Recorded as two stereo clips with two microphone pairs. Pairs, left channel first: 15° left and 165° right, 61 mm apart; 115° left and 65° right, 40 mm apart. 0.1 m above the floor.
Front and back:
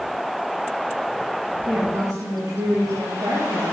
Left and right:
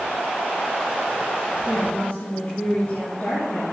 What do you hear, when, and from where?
1.6 s a woman speaking: 170° left, 7 m